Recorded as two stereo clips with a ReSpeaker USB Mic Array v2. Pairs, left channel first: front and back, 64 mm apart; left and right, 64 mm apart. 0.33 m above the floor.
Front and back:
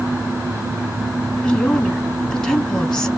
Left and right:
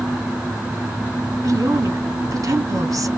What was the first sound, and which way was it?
A woman speaking, 70° right.